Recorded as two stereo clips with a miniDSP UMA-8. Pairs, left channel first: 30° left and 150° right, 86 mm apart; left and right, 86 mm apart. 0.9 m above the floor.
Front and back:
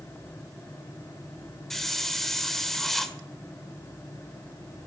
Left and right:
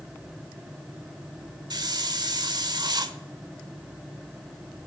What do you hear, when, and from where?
1.7 s a hiss: 55° right, 1.4 m